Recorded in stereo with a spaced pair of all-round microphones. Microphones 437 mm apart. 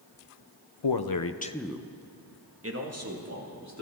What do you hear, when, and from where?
0.8 s a man speaking: 75° left (ahead or behind), 0.8 m; by 3.8 s 40° right (ahead or behind), 3 m